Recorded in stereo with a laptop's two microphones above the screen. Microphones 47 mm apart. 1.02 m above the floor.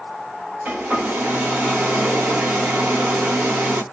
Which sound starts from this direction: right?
A hair dryer, at 0.7 s.